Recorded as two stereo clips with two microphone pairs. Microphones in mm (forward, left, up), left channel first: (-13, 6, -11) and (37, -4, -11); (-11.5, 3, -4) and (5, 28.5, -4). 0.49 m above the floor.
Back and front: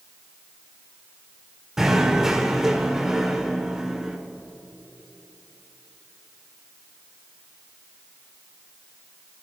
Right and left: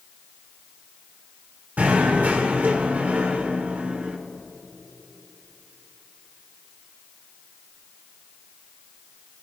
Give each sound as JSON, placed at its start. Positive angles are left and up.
{"t": 1.8, "sound": "knocking", "azimuth_deg": 70, "distance_m": 1.3}